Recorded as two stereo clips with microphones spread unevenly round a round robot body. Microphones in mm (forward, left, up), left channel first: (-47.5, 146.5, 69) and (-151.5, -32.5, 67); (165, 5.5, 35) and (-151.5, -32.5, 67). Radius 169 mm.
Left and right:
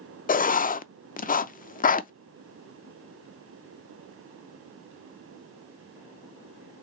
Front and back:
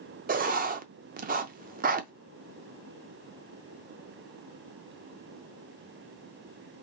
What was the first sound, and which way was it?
Writing, 120° left.